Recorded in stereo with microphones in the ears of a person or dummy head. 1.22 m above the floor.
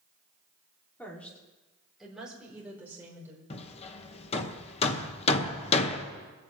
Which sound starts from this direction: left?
Hammering, at 3.5 s.